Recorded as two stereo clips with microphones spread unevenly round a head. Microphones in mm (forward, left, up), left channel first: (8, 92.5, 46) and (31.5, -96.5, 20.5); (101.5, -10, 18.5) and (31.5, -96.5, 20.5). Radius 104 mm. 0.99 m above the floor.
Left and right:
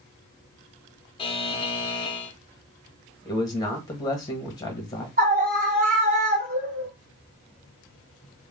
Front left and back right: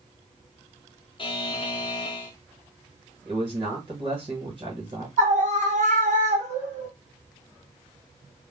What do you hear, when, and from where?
1.2 s a buzzer: 35° left, 0.7 m
3.2 s a man speaking: 170° left, 1.0 m
5.2 s a scream: 130° right, 1.3 m